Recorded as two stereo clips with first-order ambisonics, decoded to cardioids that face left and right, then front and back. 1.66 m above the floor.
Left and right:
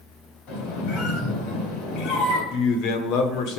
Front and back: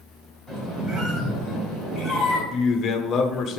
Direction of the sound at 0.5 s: 100° left.